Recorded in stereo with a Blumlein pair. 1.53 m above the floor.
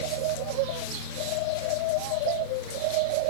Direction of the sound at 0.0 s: 50° left.